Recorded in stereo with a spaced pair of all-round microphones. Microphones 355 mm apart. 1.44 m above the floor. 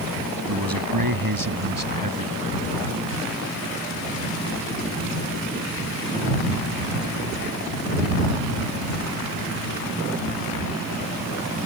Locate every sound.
0.5 s a man speaking: 80° right; by 2.6 s 70° right (ahead or behind)